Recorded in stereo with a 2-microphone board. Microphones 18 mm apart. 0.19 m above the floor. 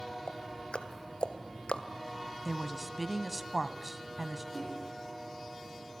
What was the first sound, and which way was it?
Ticking, 75° left (ahead or behind).